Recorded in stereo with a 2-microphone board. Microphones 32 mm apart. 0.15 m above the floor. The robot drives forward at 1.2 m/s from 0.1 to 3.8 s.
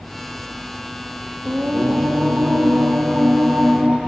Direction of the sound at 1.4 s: 60° right (ahead or behind).